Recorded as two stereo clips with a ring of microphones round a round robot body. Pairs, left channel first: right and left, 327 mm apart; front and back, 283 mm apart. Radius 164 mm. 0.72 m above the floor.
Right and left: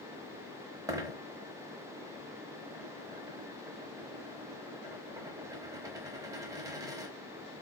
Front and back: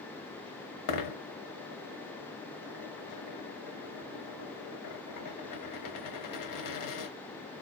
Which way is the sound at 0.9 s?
10° left.